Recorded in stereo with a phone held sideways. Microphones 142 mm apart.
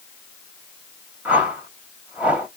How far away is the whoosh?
About 1.6 m.